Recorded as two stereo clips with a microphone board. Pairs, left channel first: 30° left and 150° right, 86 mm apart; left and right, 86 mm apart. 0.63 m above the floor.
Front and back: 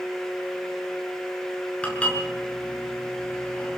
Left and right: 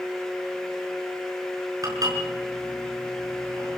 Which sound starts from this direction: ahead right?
Dishes clattering, at 1.8 s.